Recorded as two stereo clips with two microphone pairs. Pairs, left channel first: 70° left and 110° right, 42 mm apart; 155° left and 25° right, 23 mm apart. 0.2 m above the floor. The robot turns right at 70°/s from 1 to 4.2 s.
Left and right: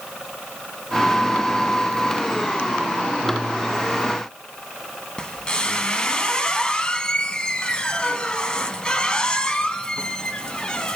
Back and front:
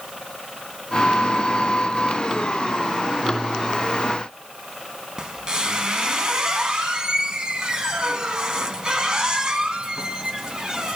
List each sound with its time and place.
5.2 s a squeak: 20° left, 0.5 m